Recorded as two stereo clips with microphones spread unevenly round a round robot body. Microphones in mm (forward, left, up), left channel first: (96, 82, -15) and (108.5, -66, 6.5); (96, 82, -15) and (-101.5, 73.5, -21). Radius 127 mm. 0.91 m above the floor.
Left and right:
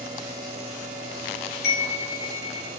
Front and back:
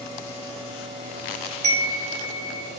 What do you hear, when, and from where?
1.6 s a chime: 130° left, 4.5 m